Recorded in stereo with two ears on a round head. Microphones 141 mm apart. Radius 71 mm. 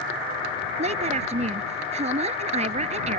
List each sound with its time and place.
0.8 s a woman speaking: 45° right (ahead or behind)